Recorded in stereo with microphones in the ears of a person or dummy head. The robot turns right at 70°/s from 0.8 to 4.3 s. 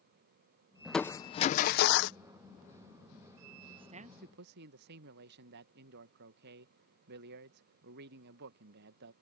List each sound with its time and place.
0.8 s crushing: straight ahead; by 2.2 s 95° left
3.7 s a man speaking: 150° right; by 9.1 s 110° right